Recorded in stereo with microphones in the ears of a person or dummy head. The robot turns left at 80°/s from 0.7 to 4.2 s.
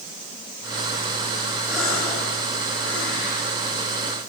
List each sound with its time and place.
1.7 s a gasp: 10° right (ahead or behind), 9 m; by 4.2 s 15° right (ahead or behind), 9 m